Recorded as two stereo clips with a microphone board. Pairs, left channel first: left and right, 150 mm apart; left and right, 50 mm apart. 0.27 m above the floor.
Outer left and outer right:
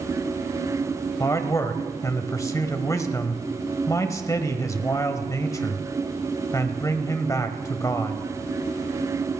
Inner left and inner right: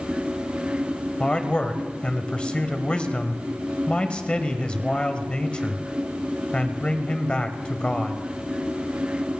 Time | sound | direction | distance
1.2 | a man speaking | 25° left (ahead or behind) | 1.4 m